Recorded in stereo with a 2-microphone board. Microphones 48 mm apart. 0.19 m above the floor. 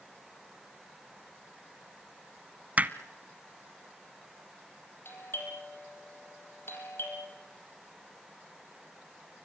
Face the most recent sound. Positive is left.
turn(degrees=50)  # may be behind; listen again after turning